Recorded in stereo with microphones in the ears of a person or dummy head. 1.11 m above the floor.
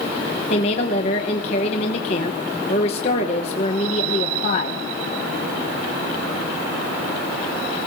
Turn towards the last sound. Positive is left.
turn(degrees=45)  # may be behind; listen again after turning